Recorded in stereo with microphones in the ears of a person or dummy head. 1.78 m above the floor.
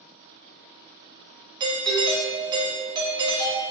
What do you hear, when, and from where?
1.6 s a doorbell: 20° right (ahead or behind), 0.6 m